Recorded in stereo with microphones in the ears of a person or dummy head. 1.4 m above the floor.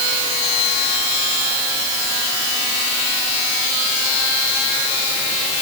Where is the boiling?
I don't hear boiling.